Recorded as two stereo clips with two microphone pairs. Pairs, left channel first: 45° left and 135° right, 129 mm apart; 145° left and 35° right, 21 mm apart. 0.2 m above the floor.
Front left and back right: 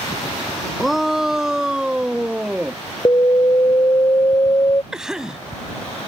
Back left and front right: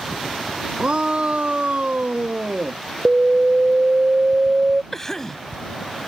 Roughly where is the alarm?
Ahead.